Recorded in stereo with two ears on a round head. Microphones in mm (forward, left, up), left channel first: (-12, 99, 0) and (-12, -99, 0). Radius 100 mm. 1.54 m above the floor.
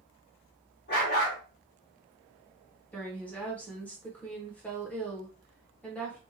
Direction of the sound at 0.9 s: 45° left (ahead or behind).